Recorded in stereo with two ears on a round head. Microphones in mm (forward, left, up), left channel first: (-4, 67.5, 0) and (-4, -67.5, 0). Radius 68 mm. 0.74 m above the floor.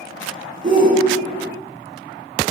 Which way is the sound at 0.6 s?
30° right (ahead or behind).